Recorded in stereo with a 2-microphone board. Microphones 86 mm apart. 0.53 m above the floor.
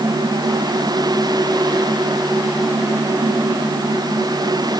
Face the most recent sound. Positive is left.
No sound to turn to.